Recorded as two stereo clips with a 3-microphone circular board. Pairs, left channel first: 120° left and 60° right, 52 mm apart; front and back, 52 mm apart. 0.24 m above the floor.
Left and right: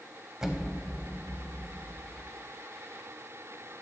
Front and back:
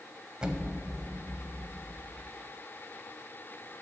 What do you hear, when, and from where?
0.4 s an explosion: 125° right, 0.6 m